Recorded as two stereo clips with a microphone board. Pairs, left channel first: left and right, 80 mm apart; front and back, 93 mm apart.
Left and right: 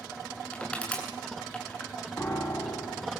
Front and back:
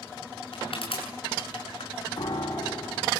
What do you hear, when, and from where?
0.5 s crushing: 15° left, 7 m
2.2 s a piano: 35° left, 6.5 m